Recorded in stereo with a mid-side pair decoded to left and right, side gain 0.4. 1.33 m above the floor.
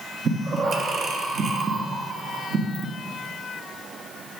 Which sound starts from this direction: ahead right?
Breathing, at 0.2 s.